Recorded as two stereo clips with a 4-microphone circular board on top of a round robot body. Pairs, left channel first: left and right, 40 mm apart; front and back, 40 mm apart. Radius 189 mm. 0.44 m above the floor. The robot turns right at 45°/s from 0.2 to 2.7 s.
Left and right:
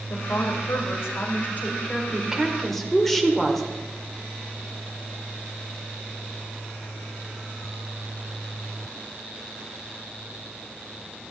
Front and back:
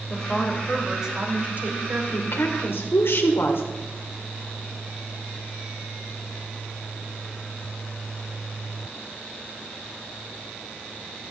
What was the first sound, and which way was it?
A woman speaking, 70° left.